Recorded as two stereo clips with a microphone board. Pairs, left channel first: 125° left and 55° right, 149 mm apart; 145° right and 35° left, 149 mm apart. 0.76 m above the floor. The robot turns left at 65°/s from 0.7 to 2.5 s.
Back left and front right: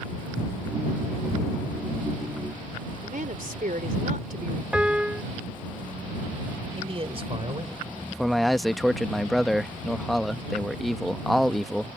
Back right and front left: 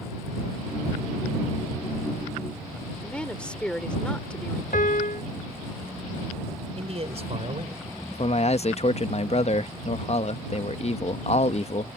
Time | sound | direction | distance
3.0 | a woman speaking | 65° right | ?
4.7 | a piano | 140° right | ?
6.8 | a man speaking | 10° right | ?
8.1 | a man speaking | 145° right | ?